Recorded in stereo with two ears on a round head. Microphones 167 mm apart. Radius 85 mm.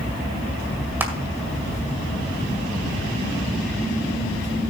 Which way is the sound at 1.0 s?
10° right (ahead or behind).